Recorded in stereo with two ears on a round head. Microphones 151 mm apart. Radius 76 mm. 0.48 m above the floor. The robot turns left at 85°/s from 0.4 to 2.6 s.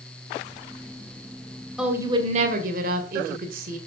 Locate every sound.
1.8 s a woman speaking: 5° right, 1.9 m; by 3.8 s 70° right, 1.9 m